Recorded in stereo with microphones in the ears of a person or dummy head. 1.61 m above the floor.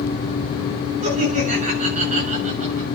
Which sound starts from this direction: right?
Laughter, at 1.0 s.